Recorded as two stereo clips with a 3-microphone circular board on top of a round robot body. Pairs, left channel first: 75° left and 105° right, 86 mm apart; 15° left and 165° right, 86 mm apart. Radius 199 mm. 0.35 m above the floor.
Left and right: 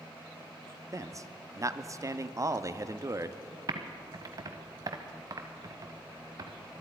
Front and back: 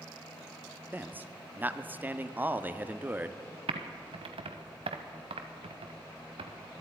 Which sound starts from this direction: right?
A man speaking, at 0.9 s.